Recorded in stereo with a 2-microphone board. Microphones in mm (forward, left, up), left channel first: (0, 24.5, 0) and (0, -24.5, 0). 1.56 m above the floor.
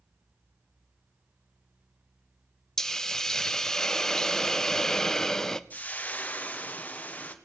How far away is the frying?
About 1.0 m.